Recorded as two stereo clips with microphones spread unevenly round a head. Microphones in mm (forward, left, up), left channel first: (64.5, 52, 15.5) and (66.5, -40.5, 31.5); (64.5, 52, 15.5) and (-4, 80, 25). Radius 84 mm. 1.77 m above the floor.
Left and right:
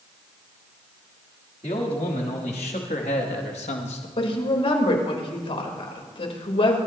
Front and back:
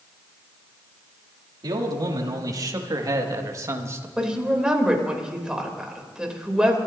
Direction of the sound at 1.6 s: 140° left.